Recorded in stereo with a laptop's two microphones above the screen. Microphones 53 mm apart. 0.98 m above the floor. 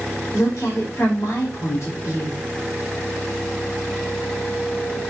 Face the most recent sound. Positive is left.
turn(degrees=65)  # may be behind; listen again after turning